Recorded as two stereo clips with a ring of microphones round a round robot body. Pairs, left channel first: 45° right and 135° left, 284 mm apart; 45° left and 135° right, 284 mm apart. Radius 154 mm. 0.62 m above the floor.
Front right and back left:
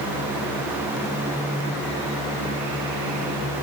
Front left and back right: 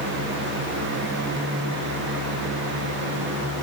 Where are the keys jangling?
No keys jangling in this recording.